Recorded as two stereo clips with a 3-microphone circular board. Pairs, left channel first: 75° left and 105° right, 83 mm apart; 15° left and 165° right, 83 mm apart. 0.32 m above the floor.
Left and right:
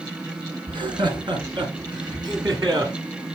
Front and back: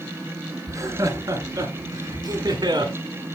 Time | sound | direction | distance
0.7 | laughter | 115° right | 3 m